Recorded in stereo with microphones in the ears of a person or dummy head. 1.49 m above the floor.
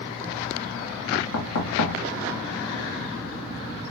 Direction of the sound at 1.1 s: 80° left.